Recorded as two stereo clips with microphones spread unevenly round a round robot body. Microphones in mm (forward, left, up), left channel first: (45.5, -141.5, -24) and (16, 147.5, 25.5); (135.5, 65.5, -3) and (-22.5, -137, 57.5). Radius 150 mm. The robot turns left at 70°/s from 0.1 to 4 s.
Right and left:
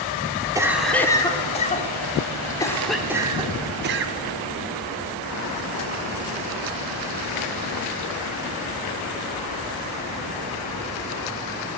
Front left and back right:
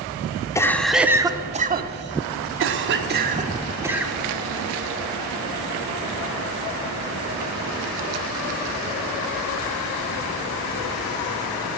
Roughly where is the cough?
Ahead.